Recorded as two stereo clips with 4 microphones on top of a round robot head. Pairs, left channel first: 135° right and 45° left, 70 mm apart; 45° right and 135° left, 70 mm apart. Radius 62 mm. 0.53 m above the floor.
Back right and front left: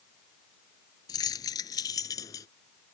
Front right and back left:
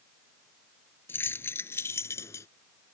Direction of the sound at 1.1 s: 105° right.